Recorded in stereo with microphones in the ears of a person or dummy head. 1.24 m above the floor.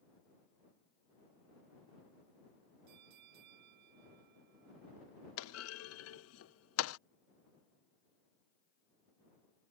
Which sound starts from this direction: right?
A bell, at 2.9 s.